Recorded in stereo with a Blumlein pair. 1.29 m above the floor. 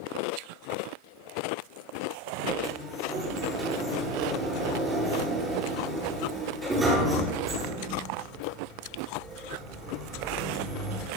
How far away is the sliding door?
About 8.5 m.